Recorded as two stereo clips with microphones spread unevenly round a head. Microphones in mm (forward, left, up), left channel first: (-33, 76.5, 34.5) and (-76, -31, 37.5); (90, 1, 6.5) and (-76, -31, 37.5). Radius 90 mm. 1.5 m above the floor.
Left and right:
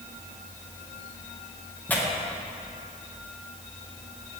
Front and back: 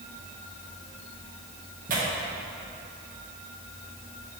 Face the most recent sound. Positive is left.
turn(degrees=145)